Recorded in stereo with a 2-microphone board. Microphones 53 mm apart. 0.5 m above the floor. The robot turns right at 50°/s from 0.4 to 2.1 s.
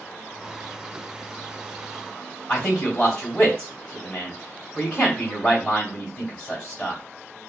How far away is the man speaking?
About 1.9 m.